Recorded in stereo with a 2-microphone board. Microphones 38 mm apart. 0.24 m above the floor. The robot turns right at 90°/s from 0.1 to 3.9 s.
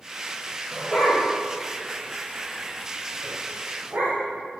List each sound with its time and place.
0.7 s a dog barking: 20° right (ahead or behind), 3 m; by 4.2 s 80° right, 3 m